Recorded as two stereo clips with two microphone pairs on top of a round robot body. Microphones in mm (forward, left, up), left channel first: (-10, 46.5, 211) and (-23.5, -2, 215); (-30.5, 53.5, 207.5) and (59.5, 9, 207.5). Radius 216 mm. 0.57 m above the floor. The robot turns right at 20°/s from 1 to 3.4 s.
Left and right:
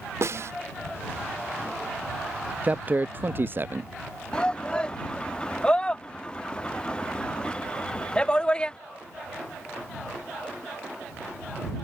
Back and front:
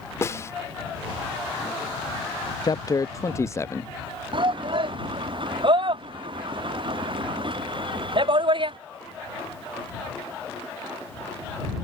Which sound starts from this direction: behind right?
A snare drum, at 0.2 s.